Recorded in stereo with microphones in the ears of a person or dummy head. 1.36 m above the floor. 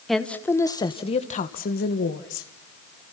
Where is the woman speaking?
5° left (ahead or behind), 1.5 m; by 2.5 s 65° left (ahead or behind), 1.9 m.